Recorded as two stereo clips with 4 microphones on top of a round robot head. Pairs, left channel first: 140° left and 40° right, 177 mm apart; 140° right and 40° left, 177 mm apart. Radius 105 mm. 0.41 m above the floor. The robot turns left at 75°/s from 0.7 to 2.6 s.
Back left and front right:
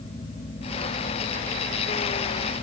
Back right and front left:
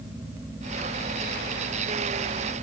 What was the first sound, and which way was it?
Only background noise.